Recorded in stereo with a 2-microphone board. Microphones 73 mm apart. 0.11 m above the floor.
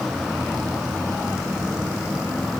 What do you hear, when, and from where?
Only background noise.